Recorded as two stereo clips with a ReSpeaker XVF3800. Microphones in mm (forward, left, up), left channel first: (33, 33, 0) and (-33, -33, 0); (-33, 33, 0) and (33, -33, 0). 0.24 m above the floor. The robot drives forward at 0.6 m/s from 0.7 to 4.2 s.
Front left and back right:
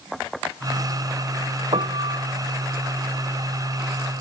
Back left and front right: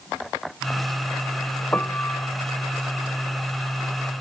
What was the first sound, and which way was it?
A piano, 155° right.